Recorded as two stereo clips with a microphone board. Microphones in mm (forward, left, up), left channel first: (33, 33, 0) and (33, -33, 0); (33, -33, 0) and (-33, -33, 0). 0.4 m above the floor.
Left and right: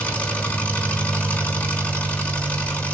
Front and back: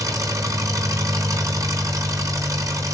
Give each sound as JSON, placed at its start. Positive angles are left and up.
{"t": 0.0, "sound": "an engine running", "azimuth_deg": 160, "distance_m": 4.0}